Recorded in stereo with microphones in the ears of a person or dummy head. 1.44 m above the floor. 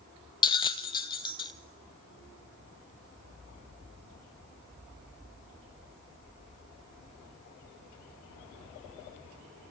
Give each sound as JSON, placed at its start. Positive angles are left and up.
{"t": 0.4, "sound": "a bell", "side_deg": 25, "distance_m": 1.2}